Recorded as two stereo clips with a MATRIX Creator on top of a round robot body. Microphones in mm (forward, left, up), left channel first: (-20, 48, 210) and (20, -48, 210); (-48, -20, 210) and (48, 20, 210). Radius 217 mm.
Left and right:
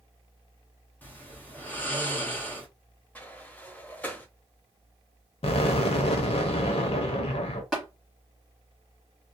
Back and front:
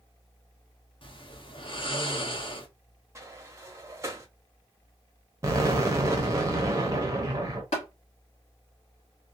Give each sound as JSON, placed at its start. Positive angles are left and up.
{"t": 1.0, "sound": "snoring", "azimuth_deg": -175, "distance_m": 1.2}
{"t": 3.1, "sound": "a sliding door", "azimuth_deg": 50, "distance_m": 1.1}
{"t": 5.4, "sound": "an explosion", "azimuth_deg": 85, "distance_m": 0.6}
{"t": 7.7, "sound": "tapping", "azimuth_deg": -160, "distance_m": 1.4}